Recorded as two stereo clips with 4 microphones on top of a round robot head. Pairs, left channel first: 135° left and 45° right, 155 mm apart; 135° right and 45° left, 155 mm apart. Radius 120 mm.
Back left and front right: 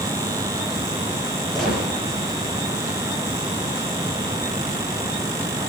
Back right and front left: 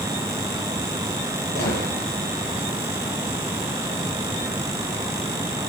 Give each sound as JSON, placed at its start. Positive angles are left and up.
{"t": 1.6, "sound": "a gunshot", "azimuth_deg": -140, "distance_m": 9.0}